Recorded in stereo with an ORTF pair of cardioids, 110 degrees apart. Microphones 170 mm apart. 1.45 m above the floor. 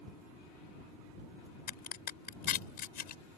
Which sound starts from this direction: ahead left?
A crack, at 1.7 s.